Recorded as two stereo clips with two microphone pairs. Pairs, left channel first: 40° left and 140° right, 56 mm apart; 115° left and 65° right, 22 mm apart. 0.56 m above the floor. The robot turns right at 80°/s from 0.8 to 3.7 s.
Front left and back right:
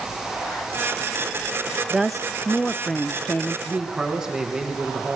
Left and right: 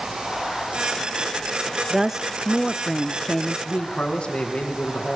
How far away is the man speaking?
About 7.5 m.